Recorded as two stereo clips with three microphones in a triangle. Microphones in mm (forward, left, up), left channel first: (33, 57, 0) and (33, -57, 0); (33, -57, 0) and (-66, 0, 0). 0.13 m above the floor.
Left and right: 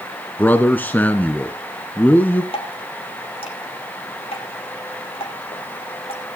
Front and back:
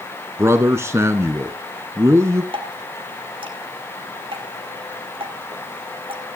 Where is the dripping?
115° left, 3 m.